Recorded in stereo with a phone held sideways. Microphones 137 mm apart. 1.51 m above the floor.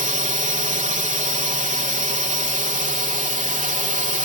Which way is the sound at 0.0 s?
65° right (ahead or behind).